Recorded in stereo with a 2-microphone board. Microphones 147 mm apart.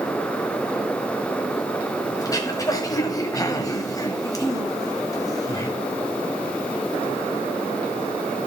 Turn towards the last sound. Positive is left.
turn(degrees=25)  # may be behind; listen again after turning